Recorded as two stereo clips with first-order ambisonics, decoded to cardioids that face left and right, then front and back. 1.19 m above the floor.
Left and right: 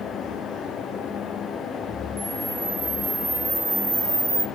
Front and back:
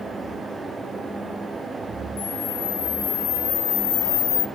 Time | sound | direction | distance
2.2 | a camera shutter | 5° right | 1.0 m